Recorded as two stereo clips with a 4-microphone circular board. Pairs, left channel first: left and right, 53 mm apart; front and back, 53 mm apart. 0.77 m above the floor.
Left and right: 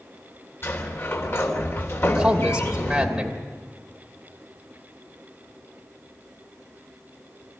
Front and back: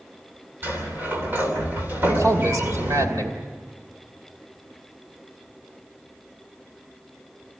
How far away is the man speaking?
About 2.5 m.